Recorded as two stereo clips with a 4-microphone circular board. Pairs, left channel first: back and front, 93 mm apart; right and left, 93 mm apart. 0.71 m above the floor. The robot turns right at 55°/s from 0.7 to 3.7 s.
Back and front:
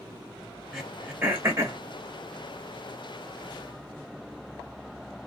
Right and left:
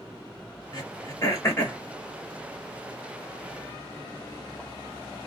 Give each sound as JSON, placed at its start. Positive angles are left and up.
{"t": 0.7, "sound": "throat clearing", "azimuth_deg": -85, "distance_m": 1.0}